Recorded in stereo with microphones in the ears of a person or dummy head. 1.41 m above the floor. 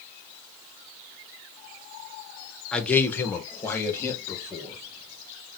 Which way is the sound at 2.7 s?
5° left (ahead or behind).